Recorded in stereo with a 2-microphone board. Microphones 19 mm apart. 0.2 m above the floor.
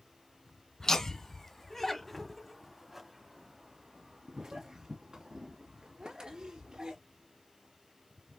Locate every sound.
0.8 s laughter: 30° left (ahead or behind), 1.6 m; by 7.0 s 45° right (ahead or behind), 3 m